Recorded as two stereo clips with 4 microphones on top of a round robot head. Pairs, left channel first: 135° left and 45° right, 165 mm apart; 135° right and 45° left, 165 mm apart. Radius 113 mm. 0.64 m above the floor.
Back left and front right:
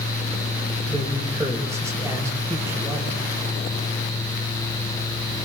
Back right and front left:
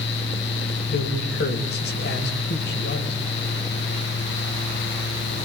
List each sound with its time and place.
0.9 s a man speaking: 120° right, 4 m